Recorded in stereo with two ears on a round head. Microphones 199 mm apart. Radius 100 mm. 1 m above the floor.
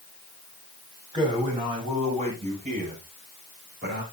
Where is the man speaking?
20° right (ahead or behind), 7.5 m; by 4.0 s 50° right (ahead or behind), 6.5 m.